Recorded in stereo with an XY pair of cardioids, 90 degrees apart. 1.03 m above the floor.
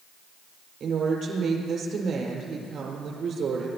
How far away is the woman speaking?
About 4.5 m.